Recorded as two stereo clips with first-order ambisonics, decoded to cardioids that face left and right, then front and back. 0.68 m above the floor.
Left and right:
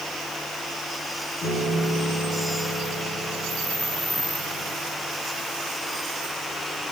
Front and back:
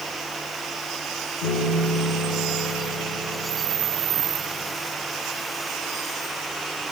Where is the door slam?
I don't hear a door slam.